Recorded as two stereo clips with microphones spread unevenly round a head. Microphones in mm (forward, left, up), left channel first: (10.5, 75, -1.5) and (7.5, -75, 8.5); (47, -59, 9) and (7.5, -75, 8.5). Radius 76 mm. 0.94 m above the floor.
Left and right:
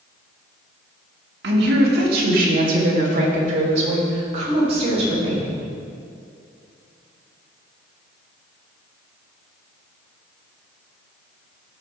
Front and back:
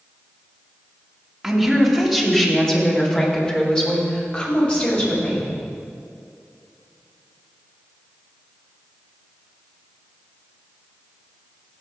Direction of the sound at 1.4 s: 70° right.